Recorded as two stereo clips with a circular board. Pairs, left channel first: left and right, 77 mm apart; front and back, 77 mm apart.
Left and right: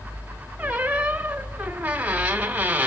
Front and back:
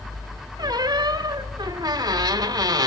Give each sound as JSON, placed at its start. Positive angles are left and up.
{"t": 0.6, "sound": "a squeak", "azimuth_deg": -160, "distance_m": 1.5}